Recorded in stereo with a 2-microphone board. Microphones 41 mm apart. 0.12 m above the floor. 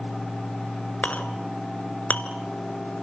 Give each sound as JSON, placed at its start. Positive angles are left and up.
{"t": 1.0, "sound": "a clink", "side_deg": 40, "distance_m": 1.4}